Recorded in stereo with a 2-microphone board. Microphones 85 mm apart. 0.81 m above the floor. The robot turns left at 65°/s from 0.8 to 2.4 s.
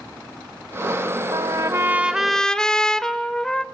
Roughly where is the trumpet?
Behind right.